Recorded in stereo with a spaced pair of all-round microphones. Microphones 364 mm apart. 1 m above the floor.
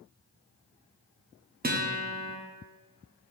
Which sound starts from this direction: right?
A guitar, at 1.6 s.